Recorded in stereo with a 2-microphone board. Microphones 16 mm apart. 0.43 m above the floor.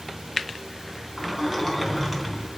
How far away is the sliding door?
About 3.5 m.